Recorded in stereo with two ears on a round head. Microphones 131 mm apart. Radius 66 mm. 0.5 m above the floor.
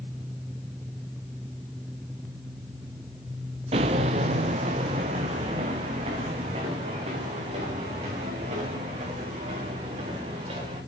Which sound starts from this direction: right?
Footsteps, at 3.7 s.